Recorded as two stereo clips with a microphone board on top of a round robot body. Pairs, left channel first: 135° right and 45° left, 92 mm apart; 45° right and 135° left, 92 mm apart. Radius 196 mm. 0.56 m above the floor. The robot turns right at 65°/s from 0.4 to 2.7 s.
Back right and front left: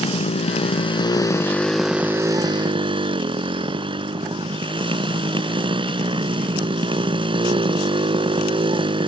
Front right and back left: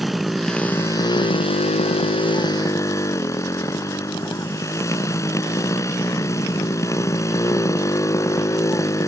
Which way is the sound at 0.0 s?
135° right.